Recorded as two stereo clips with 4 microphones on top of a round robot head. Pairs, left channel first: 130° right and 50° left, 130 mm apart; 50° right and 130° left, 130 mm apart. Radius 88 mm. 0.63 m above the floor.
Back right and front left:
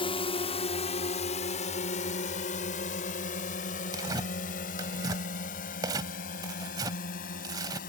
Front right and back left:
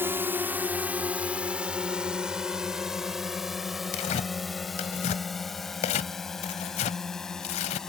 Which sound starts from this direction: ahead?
Tearing paper, at 3.9 s.